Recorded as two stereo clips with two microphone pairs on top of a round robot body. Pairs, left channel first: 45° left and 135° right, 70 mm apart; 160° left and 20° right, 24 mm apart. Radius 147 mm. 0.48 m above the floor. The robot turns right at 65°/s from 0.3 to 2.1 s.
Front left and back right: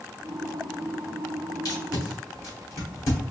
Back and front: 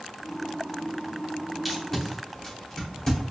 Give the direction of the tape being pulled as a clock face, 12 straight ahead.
10 o'clock.